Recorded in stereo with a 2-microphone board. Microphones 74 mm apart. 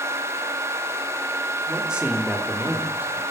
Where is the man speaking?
10° right (ahead or behind), 3.5 m; by 3.2 s 30° right (ahead or behind), 4.5 m.